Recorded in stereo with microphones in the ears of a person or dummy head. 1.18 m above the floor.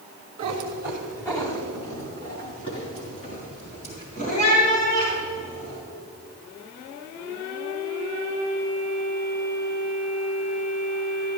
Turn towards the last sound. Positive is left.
turn(degrees=50)  # may be behind; listen again after turning